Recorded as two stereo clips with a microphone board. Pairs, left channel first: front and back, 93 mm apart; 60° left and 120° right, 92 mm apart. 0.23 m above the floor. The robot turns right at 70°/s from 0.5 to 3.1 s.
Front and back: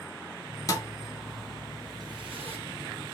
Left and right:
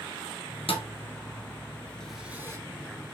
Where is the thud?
50° left, 0.7 m; by 2.6 s straight behind, 0.7 m.